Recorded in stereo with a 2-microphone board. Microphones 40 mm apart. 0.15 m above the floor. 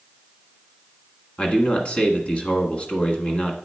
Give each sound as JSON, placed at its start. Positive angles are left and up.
{"t": 1.4, "sound": "a man speaking", "side_deg": 30, "distance_m": 1.2}